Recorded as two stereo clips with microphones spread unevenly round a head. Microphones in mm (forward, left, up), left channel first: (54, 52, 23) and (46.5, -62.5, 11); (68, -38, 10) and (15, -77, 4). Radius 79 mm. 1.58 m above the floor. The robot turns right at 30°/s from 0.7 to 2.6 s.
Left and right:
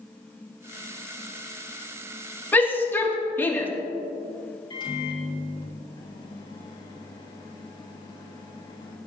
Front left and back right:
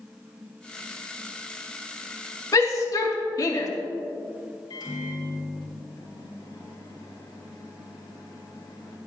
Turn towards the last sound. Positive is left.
turn(degrees=40)